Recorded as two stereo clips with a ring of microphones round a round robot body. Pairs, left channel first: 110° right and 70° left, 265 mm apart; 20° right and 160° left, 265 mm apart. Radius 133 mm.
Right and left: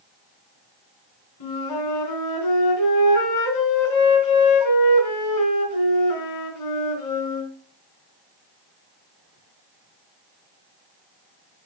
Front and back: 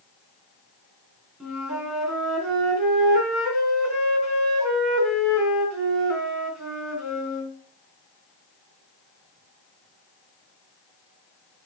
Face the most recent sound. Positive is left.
turn(degrees=-115)